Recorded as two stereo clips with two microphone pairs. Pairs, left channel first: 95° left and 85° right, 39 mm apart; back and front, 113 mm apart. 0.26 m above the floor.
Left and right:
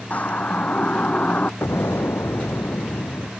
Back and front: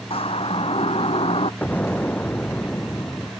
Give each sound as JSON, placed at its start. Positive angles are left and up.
{"t": 0.1, "sound": "a siren", "azimuth_deg": 145}
{"t": 1.6, "sound": "an explosion", "azimuth_deg": 105}